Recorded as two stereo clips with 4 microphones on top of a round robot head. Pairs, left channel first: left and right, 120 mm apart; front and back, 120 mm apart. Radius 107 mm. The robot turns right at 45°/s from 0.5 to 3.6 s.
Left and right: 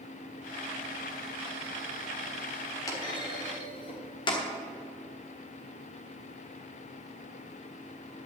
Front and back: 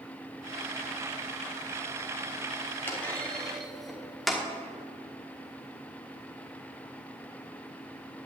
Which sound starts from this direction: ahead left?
A clunk, at 2.9 s.